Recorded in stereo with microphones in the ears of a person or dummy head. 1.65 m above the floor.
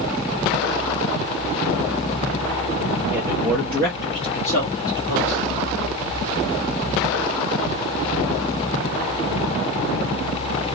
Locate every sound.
3.1 s a man speaking: 25° right (ahead or behind), 0.6 m; by 5.5 s 55° left (ahead or behind), 1.6 m